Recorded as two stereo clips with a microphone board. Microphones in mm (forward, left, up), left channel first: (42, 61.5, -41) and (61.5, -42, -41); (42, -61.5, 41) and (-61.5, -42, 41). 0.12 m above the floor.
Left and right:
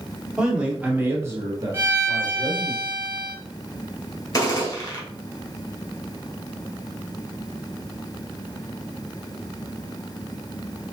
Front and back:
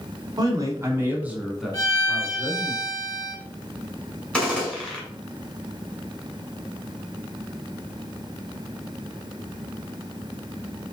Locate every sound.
0.4 s a man speaking: 160° right, 1.4 m; by 2.7 s 75° right, 1.7 m
1.7 s a violin: 25° right, 2 m
4.3 s a gunshot: 65° left, 1.9 m